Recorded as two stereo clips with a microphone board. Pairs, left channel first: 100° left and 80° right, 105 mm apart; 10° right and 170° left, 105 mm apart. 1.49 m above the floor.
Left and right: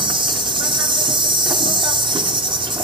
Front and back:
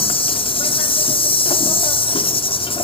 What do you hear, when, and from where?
0.0 s an insect: 40° right, 1.3 m